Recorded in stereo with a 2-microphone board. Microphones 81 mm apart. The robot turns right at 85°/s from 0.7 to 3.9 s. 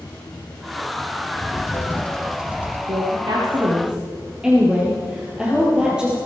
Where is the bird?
100° left, 1.8 m; by 2.8 s 140° right, 1.8 m.